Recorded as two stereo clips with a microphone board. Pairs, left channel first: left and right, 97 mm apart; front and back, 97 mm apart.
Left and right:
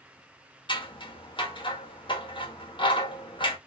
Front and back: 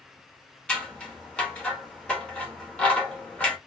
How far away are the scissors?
About 1.1 m.